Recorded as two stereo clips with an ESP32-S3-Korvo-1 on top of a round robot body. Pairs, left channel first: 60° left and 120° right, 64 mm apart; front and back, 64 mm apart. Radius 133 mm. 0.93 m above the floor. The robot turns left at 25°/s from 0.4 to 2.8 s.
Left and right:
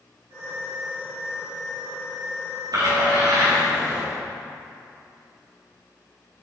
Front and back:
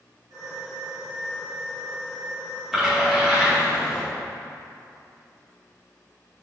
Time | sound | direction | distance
2.7 | a splash | 95° right | 2 m